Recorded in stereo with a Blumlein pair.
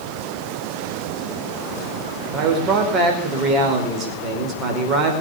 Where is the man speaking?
30° right, 4.5 m.